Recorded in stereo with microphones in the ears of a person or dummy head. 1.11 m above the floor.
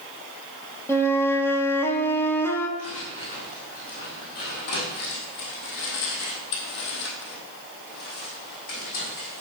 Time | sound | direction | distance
0.9 | a flute | 10° left (ahead or behind) | 1.0 m
2.8 | footsteps | 35° left (ahead or behind) | 3.5 m